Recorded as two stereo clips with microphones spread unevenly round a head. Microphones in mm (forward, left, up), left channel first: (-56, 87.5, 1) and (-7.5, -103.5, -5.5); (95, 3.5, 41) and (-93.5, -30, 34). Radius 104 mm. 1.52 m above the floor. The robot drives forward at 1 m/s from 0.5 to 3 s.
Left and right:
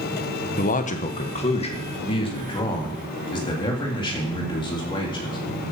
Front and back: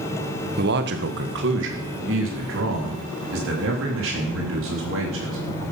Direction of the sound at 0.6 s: 150° left.